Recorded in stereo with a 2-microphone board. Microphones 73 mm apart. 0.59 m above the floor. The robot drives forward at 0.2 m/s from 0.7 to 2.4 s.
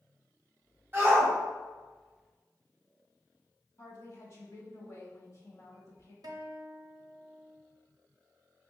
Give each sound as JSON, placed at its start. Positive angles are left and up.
{"t": 0.9, "sound": "a shout", "side_deg": -30, "distance_m": 1.3}
{"t": 3.8, "sound": "a woman speaking", "side_deg": 40, "distance_m": 1.1}
{"t": 6.2, "sound": "a guitar", "side_deg": -60, "distance_m": 0.5}